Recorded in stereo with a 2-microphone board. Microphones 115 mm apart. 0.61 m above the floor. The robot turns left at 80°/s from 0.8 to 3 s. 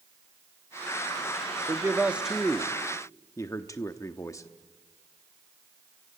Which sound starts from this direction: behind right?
A man speaking, at 1.7 s.